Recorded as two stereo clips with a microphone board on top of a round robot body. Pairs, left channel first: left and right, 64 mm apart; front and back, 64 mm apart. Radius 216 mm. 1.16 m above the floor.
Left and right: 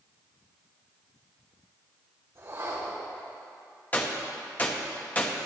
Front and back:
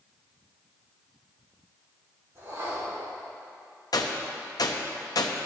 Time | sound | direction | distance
2.4 | a whoosh | 135° right | 2.5 m
3.9 | a gunshot | 25° left | 0.9 m